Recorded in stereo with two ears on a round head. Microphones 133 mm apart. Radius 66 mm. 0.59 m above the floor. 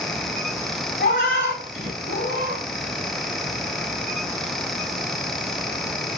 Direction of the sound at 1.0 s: 70° left (ahead or behind).